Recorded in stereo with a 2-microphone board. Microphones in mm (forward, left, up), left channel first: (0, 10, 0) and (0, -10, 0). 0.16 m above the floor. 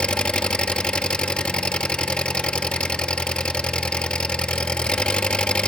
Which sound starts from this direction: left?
An engine running, at 0.0 s.